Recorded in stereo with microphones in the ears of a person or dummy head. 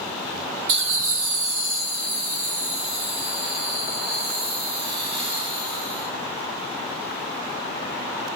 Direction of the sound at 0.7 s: 60° right (ahead or behind).